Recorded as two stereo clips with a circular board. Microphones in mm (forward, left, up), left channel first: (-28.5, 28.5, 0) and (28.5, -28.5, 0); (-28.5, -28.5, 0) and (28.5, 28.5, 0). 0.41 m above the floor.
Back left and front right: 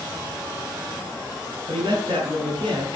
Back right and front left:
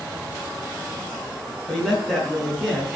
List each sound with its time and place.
1.7 s a man speaking: 40° right, 5.5 m